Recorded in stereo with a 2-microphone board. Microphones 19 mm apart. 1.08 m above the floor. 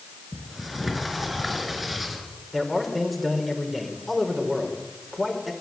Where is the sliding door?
5° right (ahead or behind), 5 m.